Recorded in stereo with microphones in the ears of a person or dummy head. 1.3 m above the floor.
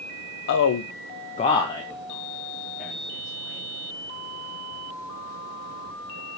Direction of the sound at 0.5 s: 60° left (ahead or behind).